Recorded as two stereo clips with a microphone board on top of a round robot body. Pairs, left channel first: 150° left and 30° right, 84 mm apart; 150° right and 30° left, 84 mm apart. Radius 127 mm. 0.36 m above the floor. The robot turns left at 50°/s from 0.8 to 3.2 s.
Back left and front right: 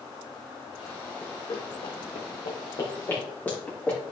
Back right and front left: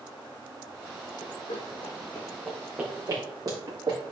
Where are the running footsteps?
135° right, 1.2 m; by 4.0 s 75° left, 3 m.